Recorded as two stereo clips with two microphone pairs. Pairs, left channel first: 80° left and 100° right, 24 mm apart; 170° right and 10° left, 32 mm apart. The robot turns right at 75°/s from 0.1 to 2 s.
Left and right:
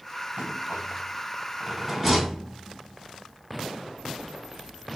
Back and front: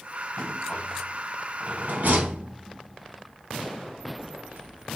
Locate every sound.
0.4 s a rattle: 130° right, 2.5 m; by 5.0 s 10° right, 2.5 m